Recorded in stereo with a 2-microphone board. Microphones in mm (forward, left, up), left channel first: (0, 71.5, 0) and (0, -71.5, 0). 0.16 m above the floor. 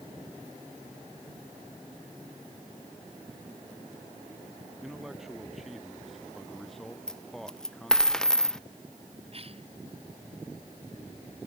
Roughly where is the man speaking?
Centre.